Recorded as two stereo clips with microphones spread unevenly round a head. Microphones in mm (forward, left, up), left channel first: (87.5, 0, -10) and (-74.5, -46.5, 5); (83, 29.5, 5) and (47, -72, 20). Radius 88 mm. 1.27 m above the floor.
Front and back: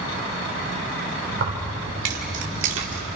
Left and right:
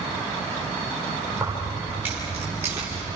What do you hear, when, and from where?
1.3 s keys jangling: 170° left, 3.5 m; by 3.1 s 175° left, 2.5 m